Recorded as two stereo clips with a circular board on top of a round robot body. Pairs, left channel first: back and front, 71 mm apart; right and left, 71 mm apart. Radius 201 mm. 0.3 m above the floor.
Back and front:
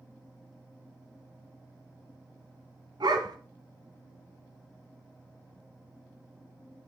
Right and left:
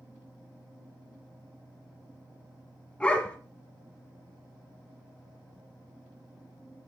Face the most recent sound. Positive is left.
turn(degrees=-15)